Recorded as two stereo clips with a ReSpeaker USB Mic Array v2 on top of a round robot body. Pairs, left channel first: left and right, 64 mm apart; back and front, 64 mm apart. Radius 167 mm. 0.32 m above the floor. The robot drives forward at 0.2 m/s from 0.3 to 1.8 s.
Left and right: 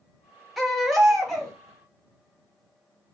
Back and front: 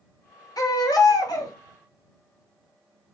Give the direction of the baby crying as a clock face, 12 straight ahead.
6 o'clock.